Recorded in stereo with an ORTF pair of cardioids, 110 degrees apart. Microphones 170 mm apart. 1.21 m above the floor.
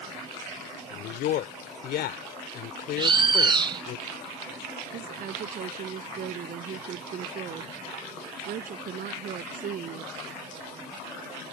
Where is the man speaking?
70° left.